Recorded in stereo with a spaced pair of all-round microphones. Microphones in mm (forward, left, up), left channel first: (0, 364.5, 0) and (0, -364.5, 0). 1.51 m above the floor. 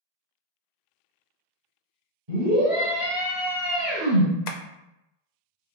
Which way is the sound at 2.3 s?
55° right (ahead or behind).